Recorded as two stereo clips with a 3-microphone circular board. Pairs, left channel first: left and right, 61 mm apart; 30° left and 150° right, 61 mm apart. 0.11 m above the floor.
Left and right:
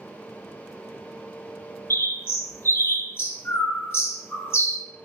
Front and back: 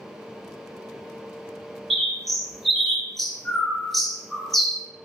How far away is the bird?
About 0.7 m.